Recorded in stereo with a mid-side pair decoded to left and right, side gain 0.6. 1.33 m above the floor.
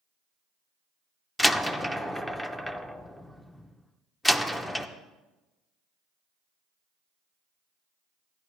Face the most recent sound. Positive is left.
turn(degrees=10)